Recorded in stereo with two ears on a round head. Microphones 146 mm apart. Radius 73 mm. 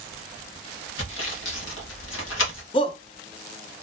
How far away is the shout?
About 0.7 m.